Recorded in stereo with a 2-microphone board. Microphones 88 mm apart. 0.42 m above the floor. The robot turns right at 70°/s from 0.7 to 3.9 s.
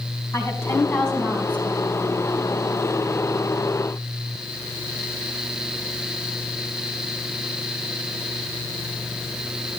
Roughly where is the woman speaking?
Behind left.